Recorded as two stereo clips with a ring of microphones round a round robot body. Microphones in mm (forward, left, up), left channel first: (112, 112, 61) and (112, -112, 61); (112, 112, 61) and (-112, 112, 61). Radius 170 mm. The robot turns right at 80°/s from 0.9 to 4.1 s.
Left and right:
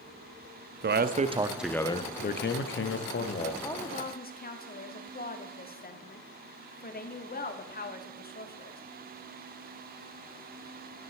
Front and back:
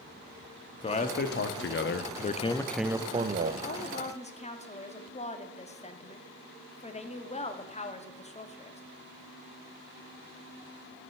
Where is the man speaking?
60° right, 0.8 m; by 3.5 s 150° left, 0.8 m.